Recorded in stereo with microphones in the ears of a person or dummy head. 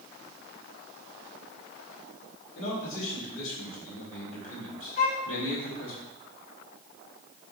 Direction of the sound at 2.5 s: 80° left.